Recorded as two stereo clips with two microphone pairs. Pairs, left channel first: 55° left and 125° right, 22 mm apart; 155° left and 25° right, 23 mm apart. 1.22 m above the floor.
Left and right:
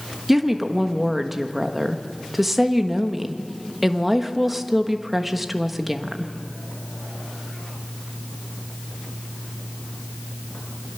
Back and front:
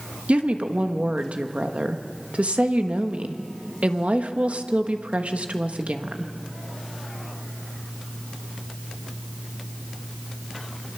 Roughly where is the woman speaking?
Ahead right.